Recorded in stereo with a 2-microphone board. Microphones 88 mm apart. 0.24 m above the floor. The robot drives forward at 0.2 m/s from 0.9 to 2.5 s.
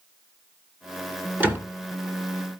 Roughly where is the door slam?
Right.